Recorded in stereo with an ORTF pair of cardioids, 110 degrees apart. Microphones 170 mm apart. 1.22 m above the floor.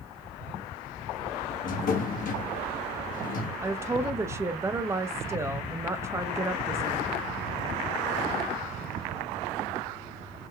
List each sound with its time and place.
1.6 s a drawer: 55° left, 1.3 m
3.6 s a woman speaking: 15° right, 0.8 m